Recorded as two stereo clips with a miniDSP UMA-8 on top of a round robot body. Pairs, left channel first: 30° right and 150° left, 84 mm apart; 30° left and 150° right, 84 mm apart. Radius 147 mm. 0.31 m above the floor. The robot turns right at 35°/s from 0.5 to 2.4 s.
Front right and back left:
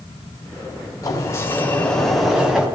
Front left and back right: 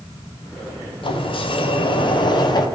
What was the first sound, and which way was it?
A sliding door, 20° left.